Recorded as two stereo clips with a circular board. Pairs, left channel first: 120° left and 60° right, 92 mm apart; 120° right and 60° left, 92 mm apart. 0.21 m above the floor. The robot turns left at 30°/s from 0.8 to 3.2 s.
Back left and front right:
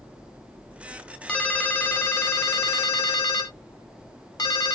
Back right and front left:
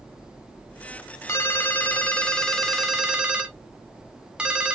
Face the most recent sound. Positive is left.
turn(degrees=135)